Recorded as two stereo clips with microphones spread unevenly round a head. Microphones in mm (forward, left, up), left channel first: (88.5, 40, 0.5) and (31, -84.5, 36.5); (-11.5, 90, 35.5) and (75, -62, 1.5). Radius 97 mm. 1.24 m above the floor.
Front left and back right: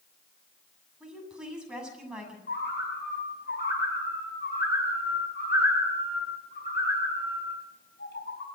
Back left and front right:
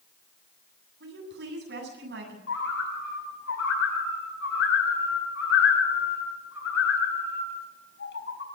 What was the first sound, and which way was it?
A woman speaking, 35° right.